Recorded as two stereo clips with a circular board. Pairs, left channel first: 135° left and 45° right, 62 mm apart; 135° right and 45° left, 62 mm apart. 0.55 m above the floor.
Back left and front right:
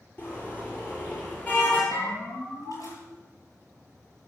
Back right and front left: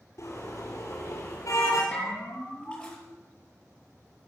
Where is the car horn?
170° right, 5.5 m; by 1.8 s 165° right, 6.5 m.